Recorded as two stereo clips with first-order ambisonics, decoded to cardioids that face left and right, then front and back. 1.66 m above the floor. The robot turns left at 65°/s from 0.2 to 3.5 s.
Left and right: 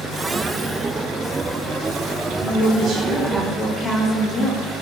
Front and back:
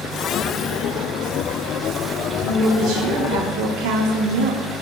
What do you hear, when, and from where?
2.4 s a woman speaking: 110° right, 0.6 m; by 4.7 s 175° left, 0.6 m